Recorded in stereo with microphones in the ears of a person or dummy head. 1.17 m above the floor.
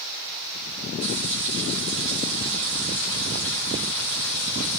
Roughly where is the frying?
Right.